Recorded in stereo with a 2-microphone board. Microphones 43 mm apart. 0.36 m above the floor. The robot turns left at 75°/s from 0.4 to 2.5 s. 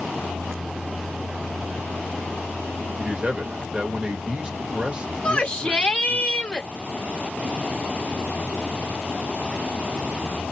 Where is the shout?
25° left (ahead or behind), 1.0 m.